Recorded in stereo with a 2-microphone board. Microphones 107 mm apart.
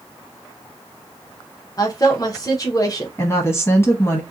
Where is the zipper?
No zipper in this recording.